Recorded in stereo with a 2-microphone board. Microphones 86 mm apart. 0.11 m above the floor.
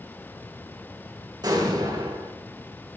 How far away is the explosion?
About 5 m.